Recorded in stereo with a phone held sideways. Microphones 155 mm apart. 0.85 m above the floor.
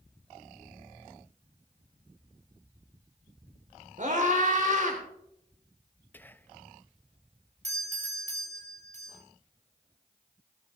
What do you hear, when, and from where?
4.0 s a scream: 55° right (ahead or behind), 3 m
6.1 s whispering: 10° left (ahead or behind), 0.5 m
7.6 s a doorbell: 45° right (ahead or behind), 3 m